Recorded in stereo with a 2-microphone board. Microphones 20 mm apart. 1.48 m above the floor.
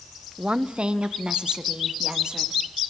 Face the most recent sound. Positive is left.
turn(degrees=-40)  # may be behind; listen again after turning